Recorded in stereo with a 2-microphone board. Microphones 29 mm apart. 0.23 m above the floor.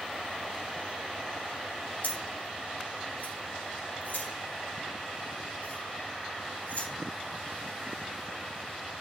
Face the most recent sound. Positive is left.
turn(degrees=75)  # may be behind; listen again after turning